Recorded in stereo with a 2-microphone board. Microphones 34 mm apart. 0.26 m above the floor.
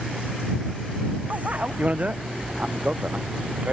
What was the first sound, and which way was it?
A bicycle bell, 45° right (ahead or behind).